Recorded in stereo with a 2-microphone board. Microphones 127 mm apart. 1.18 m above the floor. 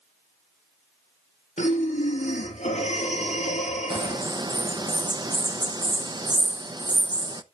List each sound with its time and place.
1.6 s breathing: 75° left (ahead or behind), 4.5 m
3.9 s a bird: 35° right (ahead or behind), 0.7 m